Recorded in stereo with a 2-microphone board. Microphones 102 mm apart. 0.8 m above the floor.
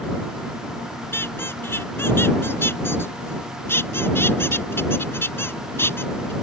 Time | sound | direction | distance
1.1 | a squeak | 20° left (ahead or behind) | ?